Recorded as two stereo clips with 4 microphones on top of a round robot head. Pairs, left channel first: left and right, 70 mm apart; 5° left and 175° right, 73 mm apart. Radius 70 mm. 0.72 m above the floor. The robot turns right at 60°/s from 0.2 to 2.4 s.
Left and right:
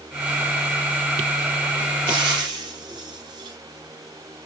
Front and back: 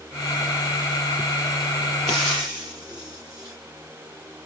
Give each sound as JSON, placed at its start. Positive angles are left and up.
{"t": 2.1, "sound": "frying", "azimuth_deg": -85, "distance_m": 3.5}